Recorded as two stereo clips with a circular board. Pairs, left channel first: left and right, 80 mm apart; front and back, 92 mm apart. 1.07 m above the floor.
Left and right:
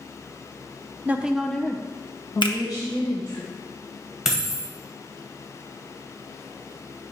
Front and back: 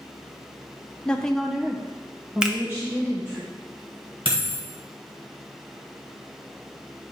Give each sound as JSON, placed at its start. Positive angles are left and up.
{"t": 1.1, "sound": "a woman speaking", "azimuth_deg": -60, "distance_m": 0.7}
{"t": 2.4, "sound": "a finger snap", "azimuth_deg": 100, "distance_m": 0.8}
{"t": 4.2, "sound": "a dropped coin", "azimuth_deg": -175, "distance_m": 1.9}